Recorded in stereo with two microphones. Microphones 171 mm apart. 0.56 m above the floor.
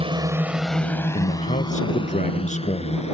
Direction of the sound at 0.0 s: 35° right (ahead or behind).